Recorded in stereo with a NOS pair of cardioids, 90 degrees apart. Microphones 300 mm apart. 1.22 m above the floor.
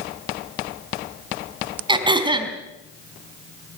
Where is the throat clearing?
15° right, 4 m.